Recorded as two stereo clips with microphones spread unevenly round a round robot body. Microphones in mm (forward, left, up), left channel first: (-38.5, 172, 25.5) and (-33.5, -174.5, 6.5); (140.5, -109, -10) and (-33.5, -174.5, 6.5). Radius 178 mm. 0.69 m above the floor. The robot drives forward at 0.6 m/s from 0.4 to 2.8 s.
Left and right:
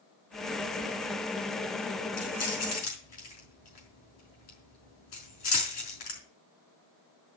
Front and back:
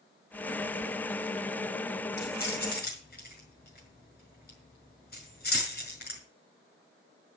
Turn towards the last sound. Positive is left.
turn(degrees=105)